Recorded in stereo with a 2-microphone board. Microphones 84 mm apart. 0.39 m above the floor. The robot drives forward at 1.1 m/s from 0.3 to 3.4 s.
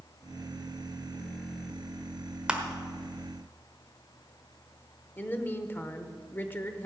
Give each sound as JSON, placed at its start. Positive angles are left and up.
{"t": 2.5, "sound": "crushing", "side_deg": -10, "distance_m": 1.3}
{"t": 5.2, "sound": "a woman speaking", "side_deg": 25, "distance_m": 0.9}